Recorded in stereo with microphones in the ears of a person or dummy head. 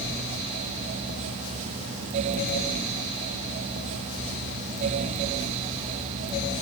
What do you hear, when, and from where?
Only background noise.